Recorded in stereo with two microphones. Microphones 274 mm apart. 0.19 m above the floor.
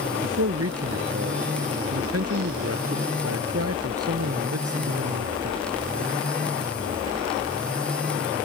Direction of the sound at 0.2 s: 60° right (ahead or behind).